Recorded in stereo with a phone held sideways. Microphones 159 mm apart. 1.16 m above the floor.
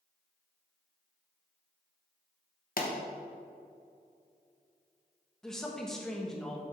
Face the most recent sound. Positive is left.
turn(degrees=5)  # may be behind; listen again after turning